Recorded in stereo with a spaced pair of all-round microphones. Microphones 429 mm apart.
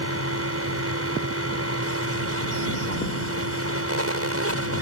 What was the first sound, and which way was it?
A fan, 35° right (ahead or behind).